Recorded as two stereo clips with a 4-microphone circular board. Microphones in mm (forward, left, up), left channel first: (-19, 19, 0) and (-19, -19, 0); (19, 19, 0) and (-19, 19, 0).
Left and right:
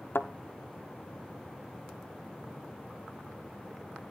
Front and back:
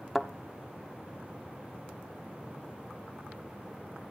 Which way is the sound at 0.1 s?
90° left.